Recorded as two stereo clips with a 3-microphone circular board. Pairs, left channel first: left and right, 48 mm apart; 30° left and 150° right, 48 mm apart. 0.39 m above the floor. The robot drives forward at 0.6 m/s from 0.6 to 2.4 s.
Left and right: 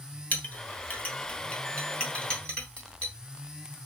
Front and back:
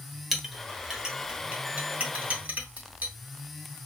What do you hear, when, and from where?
0.3 s a clink: 125° left, 1.1 m; by 3.1 s 160° left, 1.8 m